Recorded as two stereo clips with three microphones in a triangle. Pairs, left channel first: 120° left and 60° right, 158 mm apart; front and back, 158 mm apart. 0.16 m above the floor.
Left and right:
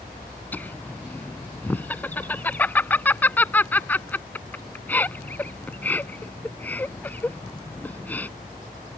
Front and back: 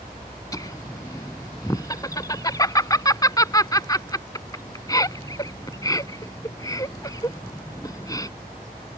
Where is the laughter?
50° left.